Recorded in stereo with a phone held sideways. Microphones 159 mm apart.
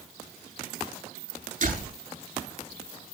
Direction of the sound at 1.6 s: 55° right (ahead or behind).